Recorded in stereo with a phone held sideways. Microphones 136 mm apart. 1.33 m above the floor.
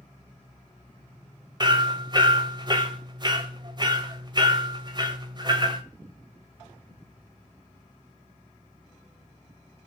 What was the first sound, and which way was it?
Hammering, 30° right (ahead or behind).